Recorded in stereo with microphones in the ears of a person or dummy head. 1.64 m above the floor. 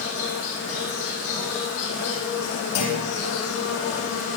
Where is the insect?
50° left (ahead or behind), 7.5 m.